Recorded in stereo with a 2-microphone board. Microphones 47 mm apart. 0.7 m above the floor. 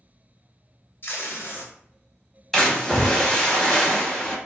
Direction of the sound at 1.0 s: 50° left (ahead or behind).